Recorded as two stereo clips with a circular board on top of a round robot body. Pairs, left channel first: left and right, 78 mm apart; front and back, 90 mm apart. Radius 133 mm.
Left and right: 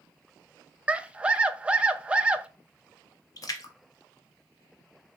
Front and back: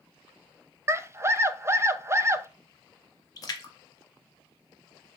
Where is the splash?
50° left, 0.9 m.